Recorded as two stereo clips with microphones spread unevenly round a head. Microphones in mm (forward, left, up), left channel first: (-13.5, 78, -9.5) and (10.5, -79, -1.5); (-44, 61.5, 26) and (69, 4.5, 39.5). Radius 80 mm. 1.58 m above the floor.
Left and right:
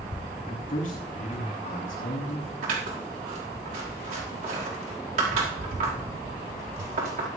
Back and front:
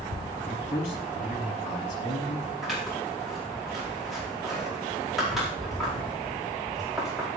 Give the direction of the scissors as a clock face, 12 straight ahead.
4 o'clock.